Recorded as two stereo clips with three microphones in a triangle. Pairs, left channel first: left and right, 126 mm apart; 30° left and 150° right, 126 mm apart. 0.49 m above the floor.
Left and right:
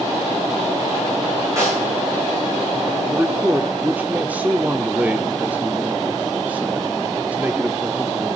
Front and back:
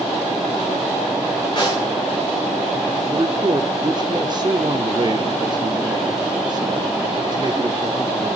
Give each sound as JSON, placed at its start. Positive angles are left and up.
{"t": 1.6, "sound": "a snare drum", "azimuth_deg": -20, "distance_m": 8.5}
{"t": 3.0, "sound": "a man speaking", "azimuth_deg": -160, "distance_m": 0.8}